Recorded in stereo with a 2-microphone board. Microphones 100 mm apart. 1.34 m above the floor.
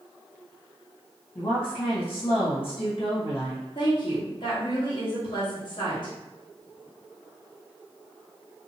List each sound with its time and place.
1.4 s a woman speaking: 55° left (ahead or behind), 1.8 m
3.8 s a woman speaking: 50° left (ahead or behind), 1.2 m